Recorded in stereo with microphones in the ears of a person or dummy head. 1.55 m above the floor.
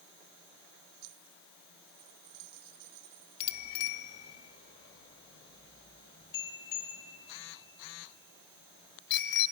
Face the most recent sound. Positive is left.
turn(degrees=20)  # may be behind; listen again after turning